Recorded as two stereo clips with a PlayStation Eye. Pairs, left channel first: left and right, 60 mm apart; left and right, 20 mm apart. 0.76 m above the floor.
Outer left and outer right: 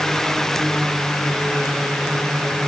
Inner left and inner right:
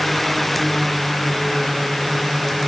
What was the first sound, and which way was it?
Only background noise.